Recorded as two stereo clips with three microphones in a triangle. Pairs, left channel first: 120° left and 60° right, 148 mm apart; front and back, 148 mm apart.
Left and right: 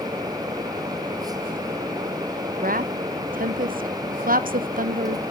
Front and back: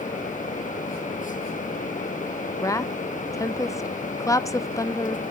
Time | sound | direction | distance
2.6 | a woman speaking | 70° right | 0.5 m